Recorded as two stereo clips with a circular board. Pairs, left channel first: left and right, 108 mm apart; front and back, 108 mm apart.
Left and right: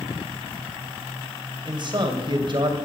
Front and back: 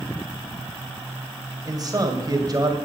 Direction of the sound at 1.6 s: 130° right.